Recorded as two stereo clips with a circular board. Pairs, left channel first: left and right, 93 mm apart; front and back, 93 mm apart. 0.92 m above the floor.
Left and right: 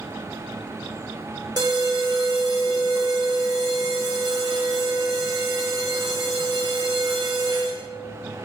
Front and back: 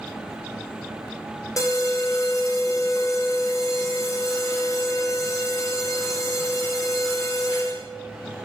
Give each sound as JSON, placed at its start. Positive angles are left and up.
{"t": 1.6, "sound": "an alarm", "azimuth_deg": -50, "distance_m": 2.5}